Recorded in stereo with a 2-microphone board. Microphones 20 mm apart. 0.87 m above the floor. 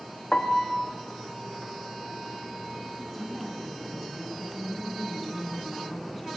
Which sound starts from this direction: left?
A piano, at 0.3 s.